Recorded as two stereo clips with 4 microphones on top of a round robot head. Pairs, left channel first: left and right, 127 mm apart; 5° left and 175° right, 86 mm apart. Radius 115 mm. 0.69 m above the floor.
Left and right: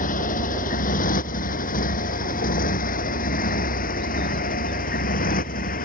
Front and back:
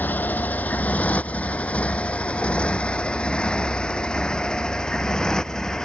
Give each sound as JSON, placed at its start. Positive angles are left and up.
{"t": 0.0, "sound": "a motorcycle", "azimuth_deg": 75}